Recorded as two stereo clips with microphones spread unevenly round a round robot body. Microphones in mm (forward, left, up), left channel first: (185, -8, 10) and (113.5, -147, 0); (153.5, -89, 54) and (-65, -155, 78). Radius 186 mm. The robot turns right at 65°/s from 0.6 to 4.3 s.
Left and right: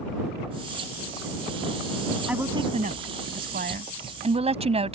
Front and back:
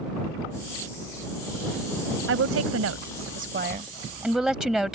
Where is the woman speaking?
155° left; by 5.0 s 75° right.